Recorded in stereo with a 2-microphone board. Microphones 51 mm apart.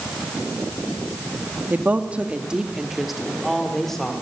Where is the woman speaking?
35° right (ahead or behind), 1.7 m; by 4.1 s 10° left (ahead or behind), 3 m.